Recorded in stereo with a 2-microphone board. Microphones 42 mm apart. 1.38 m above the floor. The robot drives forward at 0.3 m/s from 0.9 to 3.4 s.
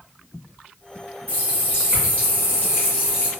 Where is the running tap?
45° left (ahead or behind), 1.6 m; by 3.3 s 60° left (ahead or behind), 1.3 m.